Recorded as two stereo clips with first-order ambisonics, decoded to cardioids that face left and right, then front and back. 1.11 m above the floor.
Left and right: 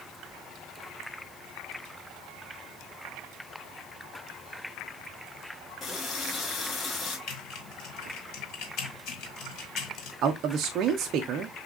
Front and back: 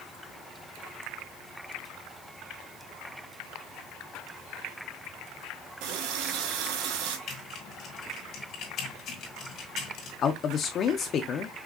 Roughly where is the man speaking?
Ahead right.